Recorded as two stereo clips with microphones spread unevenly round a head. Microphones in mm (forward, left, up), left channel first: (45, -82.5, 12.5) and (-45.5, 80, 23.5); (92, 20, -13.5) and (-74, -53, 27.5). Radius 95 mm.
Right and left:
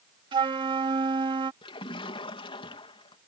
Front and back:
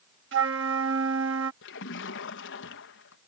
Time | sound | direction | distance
0.3 | a flute | 175° right | ?
1.6 | a splash | 5° left | ?